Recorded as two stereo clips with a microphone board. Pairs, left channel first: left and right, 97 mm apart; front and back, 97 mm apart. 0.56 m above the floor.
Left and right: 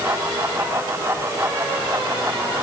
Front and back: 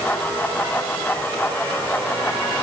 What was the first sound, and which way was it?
Only background noise.